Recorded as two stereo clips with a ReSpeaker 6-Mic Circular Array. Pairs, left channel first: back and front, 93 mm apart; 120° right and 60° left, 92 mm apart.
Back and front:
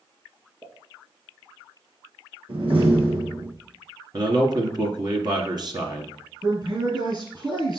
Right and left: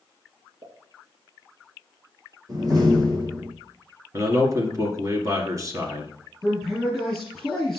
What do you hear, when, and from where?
0.6 s a pop: 45° left, 3 m
2.5 s a door slam: 10° left, 4 m
4.1 s a man speaking: 15° left, 1.8 m
6.4 s a man speaking: 30° right, 3 m